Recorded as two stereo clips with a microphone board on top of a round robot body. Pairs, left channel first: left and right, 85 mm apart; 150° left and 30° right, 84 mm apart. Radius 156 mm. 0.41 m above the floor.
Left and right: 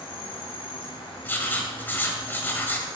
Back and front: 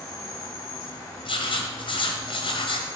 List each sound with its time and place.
0.0 s an insect: 95° left, 1.2 m
1.2 s writing: 160° left, 1.4 m